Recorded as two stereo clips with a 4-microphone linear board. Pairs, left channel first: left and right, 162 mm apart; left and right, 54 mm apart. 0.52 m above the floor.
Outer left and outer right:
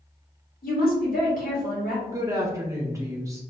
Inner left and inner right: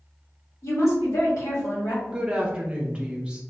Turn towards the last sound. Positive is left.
turn(degrees=-20)  # may be behind; listen again after turning